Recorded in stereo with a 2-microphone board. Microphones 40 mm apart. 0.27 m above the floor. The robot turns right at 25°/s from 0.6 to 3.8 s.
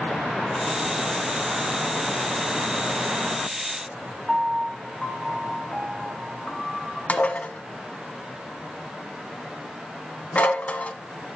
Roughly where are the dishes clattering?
Left.